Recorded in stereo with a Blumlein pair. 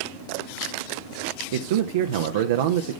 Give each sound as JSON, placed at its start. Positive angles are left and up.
{"t": 1.5, "sound": "a man speaking", "azimuth_deg": -55, "distance_m": 0.8}